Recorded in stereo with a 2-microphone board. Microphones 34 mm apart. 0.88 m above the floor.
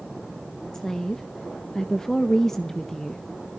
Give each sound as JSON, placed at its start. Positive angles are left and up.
{"t": 0.7, "sound": "a woman speaking", "side_deg": 10, "distance_m": 0.8}